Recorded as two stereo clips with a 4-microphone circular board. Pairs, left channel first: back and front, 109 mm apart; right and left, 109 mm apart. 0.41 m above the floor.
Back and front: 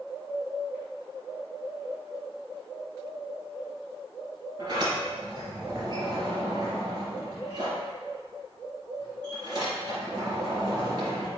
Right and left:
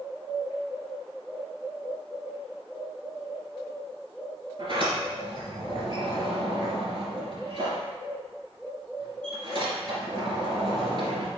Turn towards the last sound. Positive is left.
turn(degrees=50)